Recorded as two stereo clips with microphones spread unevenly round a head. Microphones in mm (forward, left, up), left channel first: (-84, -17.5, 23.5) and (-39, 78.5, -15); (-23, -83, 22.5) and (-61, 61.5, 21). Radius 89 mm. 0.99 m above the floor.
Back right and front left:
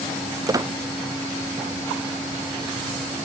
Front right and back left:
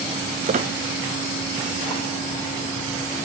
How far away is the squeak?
About 0.5 m.